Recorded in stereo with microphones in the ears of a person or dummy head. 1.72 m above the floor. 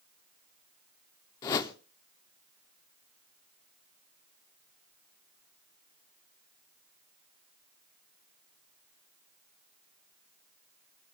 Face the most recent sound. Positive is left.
turn(degrees=20)  # may be behind; listen again after turning